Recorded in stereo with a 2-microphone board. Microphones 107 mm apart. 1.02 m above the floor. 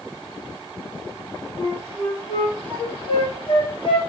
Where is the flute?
50° left (ahead or behind), 5 m.